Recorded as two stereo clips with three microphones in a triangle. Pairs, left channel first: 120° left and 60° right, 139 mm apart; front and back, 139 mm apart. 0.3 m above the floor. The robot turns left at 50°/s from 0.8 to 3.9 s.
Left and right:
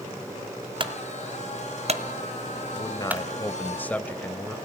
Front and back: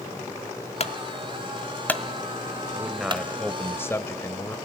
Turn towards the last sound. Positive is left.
turn(degrees=55)